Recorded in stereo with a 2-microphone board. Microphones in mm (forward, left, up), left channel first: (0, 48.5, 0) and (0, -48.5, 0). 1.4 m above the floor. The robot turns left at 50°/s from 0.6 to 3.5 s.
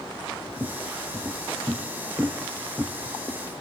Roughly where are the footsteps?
Right.